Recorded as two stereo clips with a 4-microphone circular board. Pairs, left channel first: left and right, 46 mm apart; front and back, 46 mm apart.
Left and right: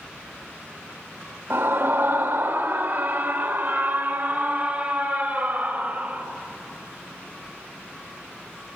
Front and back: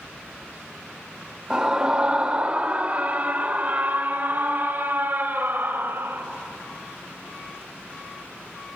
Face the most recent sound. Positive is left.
turn(degrees=-165)